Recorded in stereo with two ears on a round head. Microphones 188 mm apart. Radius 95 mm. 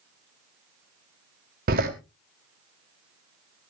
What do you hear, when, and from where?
1.7 s a door slam: 45° right (ahead or behind), 1.7 m